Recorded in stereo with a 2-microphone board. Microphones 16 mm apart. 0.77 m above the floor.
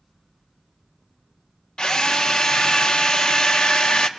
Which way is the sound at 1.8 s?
60° left (ahead or behind).